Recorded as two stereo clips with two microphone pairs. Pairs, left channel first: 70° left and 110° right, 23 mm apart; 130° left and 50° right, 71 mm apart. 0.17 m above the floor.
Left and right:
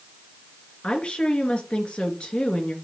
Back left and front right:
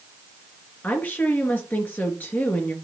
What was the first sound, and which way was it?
A woman speaking, 75° left.